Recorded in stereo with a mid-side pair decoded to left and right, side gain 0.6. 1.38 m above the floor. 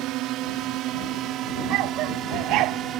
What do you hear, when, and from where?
0.0 s a drone: 70° right; by 3.0 s 55° right
1.7 s a dog barking: 70° right